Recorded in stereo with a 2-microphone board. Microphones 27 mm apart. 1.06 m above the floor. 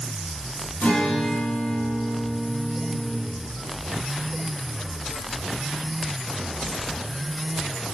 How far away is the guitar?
About 3.5 m.